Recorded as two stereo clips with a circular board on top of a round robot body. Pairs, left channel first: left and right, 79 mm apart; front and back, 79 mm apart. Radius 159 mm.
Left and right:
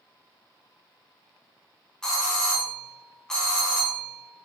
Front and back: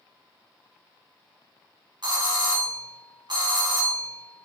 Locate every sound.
2.0 s a doorbell: 170° left, 3 m